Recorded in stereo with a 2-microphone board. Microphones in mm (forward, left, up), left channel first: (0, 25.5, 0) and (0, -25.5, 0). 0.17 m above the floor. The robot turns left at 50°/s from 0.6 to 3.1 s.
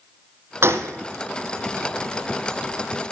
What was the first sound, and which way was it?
A gunshot, 55° right (ahead or behind).